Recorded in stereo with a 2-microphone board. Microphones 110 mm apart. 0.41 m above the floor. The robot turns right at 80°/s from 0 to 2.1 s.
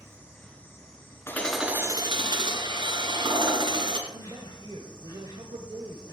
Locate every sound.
0.0 s an insect: 30° right, 4 m; by 6.1 s 135° left, 4 m
1.3 s hammering: 160° left, 2.0 m; by 4.0 s 135° right, 2.0 m
4.1 s a man speaking: 50° right (ahead or behind), 1.6 m